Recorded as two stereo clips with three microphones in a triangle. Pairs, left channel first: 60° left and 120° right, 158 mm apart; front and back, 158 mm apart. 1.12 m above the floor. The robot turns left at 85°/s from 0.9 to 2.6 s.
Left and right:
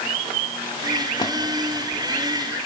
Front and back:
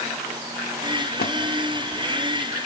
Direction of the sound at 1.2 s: Straight ahead.